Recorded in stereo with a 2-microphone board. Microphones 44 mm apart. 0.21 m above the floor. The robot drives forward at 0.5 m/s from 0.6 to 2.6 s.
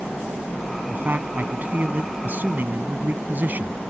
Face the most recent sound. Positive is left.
turn(degrees=-45)  # may be behind; listen again after turning